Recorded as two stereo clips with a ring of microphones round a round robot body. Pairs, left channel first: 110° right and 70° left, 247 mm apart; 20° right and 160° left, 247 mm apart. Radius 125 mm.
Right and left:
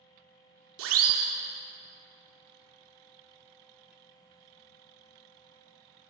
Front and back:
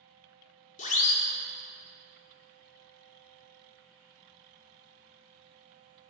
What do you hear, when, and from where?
0.8 s a siren: 35° left, 2 m